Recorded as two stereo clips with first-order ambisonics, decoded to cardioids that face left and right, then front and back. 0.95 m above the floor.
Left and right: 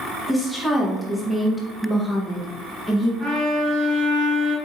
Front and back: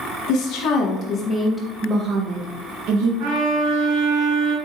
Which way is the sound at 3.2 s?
165° left.